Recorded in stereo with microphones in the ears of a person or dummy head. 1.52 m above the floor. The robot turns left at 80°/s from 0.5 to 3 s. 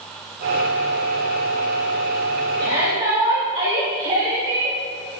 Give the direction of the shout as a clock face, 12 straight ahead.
3 o'clock.